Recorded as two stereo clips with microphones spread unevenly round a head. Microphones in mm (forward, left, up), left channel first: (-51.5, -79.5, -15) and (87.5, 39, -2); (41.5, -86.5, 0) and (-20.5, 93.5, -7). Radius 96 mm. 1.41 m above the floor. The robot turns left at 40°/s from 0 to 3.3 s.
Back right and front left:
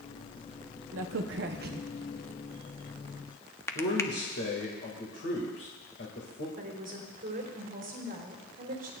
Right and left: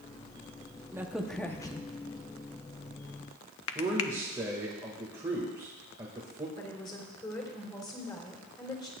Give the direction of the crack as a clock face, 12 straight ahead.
11 o'clock.